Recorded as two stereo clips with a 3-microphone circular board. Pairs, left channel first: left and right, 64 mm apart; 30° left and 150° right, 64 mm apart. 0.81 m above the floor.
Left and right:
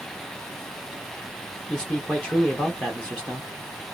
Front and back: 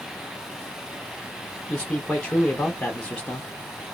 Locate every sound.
1.7 s a man speaking: 60° left, 0.9 m